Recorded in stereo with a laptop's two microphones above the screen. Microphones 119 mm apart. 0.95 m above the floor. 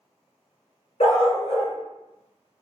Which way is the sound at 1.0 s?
65° left (ahead or behind).